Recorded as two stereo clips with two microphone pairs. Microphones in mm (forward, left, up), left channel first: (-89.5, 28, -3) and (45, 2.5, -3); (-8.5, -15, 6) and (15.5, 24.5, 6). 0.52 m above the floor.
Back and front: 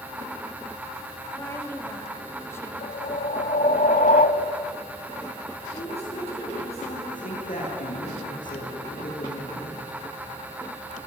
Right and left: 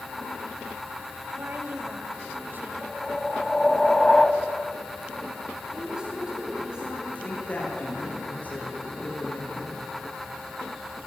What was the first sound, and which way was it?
A woman speaking, 100° left.